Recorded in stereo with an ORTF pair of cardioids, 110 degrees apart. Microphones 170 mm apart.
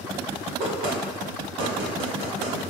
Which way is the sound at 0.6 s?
65° right.